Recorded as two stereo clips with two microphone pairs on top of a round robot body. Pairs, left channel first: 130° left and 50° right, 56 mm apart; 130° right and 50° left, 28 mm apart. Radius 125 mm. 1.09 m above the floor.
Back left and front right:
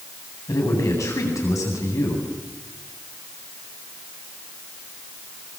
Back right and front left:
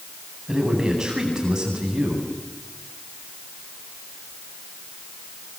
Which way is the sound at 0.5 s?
115° left.